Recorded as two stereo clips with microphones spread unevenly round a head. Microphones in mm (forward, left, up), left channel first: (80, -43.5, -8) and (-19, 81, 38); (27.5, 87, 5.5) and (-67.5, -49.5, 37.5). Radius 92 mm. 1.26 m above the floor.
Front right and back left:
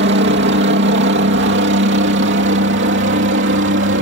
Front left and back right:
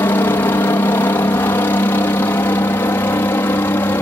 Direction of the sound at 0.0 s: 125° left.